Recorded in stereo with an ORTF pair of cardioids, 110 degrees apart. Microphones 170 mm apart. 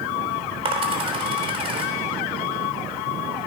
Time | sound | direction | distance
0.7 | a dropped coin | 35° right | 3.5 m